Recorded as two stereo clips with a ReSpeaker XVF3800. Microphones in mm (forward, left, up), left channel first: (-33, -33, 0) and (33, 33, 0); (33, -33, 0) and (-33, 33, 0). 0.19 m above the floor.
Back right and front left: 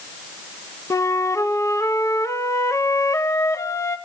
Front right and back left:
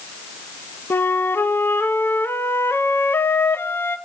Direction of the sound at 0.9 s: 100° right.